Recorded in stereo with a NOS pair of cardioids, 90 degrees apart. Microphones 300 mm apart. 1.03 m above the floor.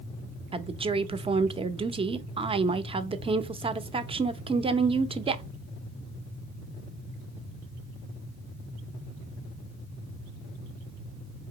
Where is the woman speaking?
15° right, 0.6 m.